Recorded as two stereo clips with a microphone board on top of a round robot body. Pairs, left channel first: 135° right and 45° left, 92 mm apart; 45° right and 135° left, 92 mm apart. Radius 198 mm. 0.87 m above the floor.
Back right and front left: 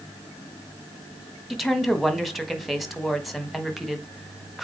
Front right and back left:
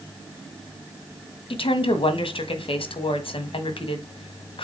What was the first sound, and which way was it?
A woman speaking, 45° right.